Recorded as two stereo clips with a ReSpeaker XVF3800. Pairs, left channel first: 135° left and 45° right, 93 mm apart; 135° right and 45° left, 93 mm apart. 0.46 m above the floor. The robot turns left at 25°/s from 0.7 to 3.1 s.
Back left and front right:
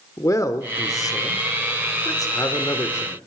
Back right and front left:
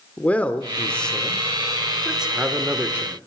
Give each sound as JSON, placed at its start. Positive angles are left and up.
{"t": 0.2, "sound": "a man speaking", "azimuth_deg": 160, "distance_m": 0.9}